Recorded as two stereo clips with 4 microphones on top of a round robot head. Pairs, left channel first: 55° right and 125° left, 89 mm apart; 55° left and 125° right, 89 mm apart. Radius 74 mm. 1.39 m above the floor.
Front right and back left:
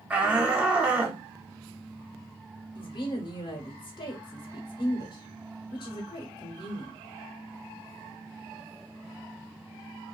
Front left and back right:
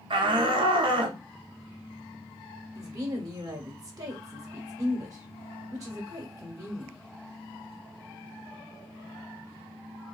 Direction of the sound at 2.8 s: 80° right.